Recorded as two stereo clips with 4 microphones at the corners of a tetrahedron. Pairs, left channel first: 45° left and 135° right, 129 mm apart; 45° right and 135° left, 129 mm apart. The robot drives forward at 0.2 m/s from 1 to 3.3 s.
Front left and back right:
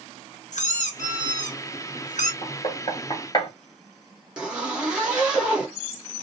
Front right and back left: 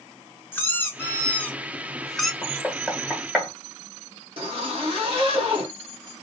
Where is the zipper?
145° left, 1.1 m.